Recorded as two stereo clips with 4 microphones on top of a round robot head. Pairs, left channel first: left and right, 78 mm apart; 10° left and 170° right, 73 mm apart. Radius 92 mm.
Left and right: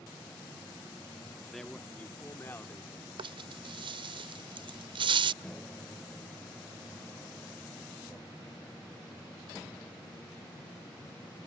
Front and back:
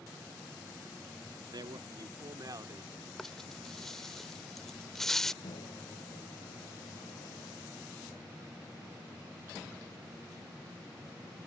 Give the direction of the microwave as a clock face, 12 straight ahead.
12 o'clock.